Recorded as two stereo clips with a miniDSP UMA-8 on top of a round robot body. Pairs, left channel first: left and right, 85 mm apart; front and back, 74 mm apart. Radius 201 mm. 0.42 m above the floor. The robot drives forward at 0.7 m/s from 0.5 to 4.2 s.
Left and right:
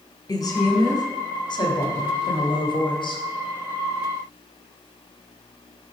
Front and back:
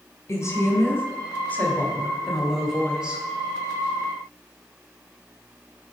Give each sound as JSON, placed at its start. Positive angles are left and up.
{"t": 0.3, "sound": "a woman speaking", "azimuth_deg": 45, "distance_m": 2.0}